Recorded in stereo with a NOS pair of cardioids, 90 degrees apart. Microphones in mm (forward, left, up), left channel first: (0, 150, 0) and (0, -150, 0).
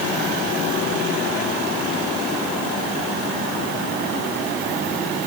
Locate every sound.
Only background noise.